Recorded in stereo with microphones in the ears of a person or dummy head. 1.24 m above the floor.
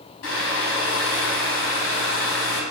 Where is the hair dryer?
70° left (ahead or behind), 3.5 m.